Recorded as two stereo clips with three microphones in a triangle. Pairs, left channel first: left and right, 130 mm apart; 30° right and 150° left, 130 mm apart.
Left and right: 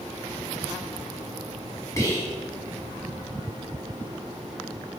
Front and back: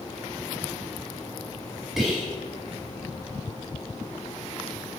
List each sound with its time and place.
2.0 s whispering: 65° left, 1.3 m